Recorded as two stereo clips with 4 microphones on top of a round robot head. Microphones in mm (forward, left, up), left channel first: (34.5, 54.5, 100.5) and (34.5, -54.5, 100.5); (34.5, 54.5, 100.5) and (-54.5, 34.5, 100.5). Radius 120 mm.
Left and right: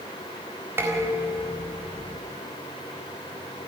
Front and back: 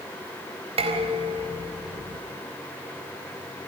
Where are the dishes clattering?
160° right, 4 m.